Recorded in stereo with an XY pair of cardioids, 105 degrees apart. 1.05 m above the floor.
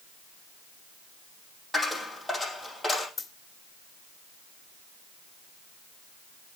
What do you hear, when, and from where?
1.7 s a dropped coin: 5° right, 5 m
3.2 s a dropped coin: 25° left, 2 m